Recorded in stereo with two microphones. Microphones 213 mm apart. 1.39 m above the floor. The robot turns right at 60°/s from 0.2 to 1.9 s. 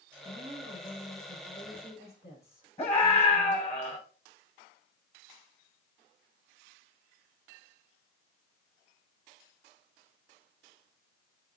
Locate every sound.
0.2 s a woman speaking: 50° right, 6 m; by 3.7 s 50° left, 6 m
2.8 s a scream: 30° left (ahead or behind), 5.5 m